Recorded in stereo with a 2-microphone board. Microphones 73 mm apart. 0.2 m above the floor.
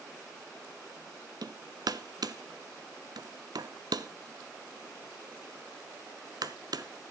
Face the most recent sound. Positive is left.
turn(degrees=-65)  # may be behind; listen again after turning